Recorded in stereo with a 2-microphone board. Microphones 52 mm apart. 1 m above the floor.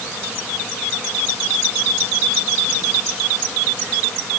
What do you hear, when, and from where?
Only background noise.